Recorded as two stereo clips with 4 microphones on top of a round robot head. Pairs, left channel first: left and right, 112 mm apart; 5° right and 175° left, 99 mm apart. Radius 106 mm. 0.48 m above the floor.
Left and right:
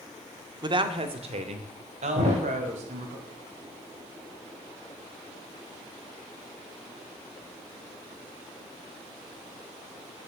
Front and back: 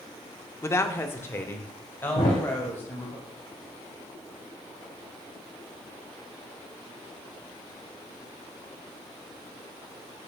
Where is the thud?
50° right, 4 m.